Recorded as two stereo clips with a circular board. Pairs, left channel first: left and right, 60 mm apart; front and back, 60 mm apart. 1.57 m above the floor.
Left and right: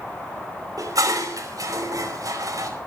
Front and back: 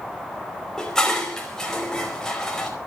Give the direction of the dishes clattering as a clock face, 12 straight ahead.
3 o'clock.